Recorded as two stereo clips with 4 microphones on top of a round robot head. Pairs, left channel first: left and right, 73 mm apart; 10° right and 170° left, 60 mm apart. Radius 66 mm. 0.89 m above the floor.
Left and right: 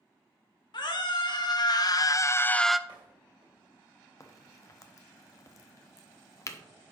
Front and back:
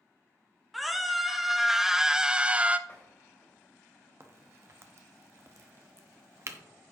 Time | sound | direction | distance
0.7 | a scream | 85° left | 2 m
2.9 | a door slam | 65° right | 2.5 m
4.2 | a crack | 135° left | 1.1 m